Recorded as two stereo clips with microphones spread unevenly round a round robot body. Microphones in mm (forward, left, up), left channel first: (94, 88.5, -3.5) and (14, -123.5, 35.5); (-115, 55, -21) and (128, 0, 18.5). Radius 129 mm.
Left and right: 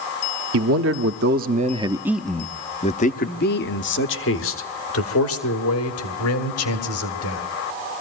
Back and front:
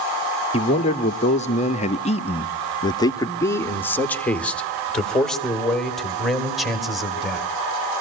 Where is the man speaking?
135° right, 1.0 m; by 7.5 s 80° left, 3 m.